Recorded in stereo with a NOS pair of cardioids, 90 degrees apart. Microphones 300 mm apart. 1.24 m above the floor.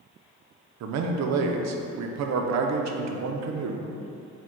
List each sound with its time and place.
0.8 s a man speaking: 65° right, 0.5 m